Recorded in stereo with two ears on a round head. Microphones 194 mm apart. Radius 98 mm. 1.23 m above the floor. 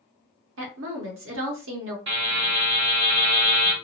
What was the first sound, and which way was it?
A woman speaking, 60° right (ahead or behind).